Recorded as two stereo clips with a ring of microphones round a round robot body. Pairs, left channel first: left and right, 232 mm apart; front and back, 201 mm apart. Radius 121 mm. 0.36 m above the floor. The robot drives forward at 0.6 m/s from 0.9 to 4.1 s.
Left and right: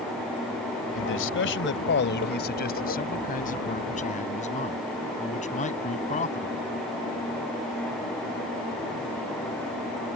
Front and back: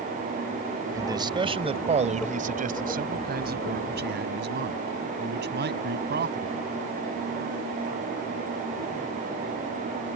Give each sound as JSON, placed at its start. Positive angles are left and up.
{"t": 0.9, "sound": "a man speaking", "azimuth_deg": 110}